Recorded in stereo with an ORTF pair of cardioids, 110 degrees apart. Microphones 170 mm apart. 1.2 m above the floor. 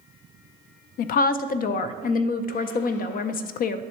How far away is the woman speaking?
About 0.5 m.